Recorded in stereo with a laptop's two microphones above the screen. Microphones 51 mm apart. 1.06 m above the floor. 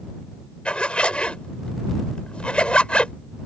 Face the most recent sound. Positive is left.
turn(degrees=20)  # may be behind; listen again after turning